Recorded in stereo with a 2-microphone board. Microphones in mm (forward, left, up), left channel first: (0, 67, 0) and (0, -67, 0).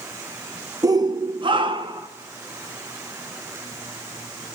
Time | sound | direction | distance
0.8 | a shout | 25° right (ahead or behind) | 0.7 m